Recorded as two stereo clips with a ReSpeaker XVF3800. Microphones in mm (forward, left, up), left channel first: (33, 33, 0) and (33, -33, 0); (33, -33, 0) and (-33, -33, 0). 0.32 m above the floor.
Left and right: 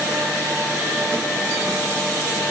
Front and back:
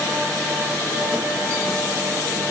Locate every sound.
Only background noise.